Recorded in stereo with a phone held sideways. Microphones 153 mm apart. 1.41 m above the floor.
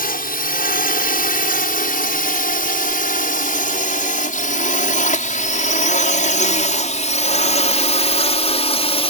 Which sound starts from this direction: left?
A drone, at 0.0 s.